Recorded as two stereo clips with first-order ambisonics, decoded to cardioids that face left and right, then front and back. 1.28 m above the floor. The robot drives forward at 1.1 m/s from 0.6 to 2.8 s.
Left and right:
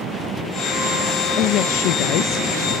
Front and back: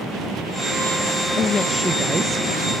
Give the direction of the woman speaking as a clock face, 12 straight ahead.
10 o'clock.